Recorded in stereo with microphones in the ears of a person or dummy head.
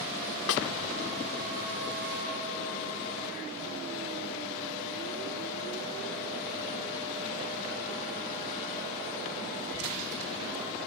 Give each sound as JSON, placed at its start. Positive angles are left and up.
{"t": 0.5, "sound": "a snare drum", "side_deg": 75}